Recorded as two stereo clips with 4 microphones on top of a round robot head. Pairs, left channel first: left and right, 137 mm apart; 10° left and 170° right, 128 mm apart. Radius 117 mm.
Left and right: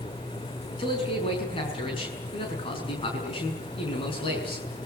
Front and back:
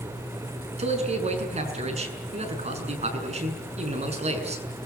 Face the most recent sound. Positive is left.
turn(degrees=150)